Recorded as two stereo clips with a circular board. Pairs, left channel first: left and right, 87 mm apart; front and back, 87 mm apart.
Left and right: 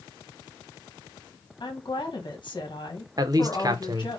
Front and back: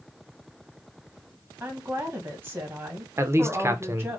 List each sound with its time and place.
1.6 s a woman speaking: 120° left, 1.7 m
3.2 s a man speaking: 125° right, 0.8 m